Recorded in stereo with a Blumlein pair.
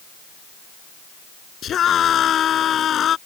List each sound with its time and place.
1.6 s a scream: 25° left